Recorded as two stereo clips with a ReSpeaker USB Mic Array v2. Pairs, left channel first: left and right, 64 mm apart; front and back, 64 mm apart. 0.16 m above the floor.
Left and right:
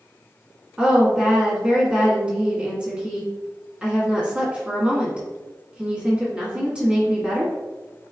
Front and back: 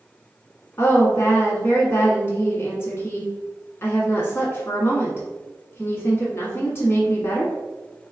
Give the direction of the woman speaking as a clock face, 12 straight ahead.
1 o'clock.